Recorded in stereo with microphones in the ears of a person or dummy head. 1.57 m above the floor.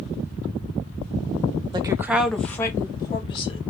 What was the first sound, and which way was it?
A woman speaking, 20° right (ahead or behind).